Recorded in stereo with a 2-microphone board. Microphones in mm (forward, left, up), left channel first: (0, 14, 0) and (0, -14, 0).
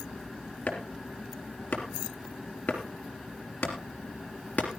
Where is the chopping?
60° left (ahead or behind), 3.5 m.